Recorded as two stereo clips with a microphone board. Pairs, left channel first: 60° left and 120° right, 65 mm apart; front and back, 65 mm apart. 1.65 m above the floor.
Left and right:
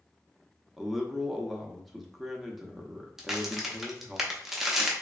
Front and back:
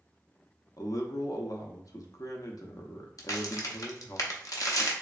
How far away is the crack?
About 0.5 m.